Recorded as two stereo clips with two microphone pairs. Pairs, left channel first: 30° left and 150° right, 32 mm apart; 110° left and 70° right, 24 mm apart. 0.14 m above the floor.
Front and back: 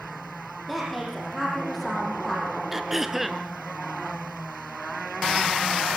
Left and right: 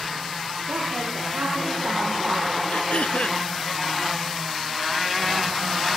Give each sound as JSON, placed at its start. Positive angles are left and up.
{"t": 0.7, "sound": "a woman speaking", "azimuth_deg": -60, "distance_m": 5.5}
{"t": 2.7, "sound": "throat clearing", "azimuth_deg": 125, "distance_m": 1.1}